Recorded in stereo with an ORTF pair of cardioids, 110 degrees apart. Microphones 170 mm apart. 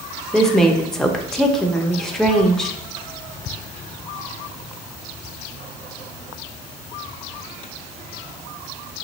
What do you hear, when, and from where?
0.3 s a woman speaking: 5° left, 0.8 m